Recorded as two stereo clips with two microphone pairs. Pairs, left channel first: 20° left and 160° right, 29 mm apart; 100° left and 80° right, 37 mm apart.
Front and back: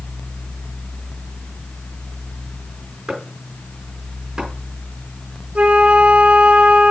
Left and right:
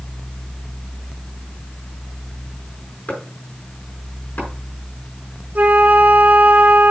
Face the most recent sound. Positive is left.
turn(degrees=-120)